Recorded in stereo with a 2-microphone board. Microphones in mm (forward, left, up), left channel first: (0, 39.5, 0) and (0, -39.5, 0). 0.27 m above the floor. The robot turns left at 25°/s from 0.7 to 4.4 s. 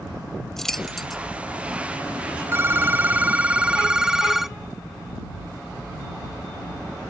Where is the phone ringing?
125° right; by 4.6 s 170° right.